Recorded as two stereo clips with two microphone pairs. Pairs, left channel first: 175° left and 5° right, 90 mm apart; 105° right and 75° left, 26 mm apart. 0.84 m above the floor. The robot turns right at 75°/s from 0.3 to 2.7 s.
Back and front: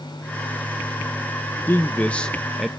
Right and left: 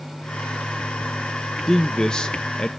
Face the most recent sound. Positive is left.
turn(degrees=-90)